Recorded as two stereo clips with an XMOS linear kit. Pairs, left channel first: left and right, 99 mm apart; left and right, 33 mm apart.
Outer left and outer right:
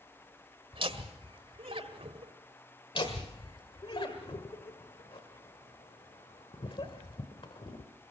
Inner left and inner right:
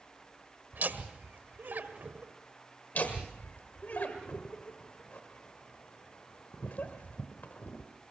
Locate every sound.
0.7 s laughter: 60° right (ahead or behind), 1.7 m
3.0 s laughter: 55° left (ahead or behind), 1.4 m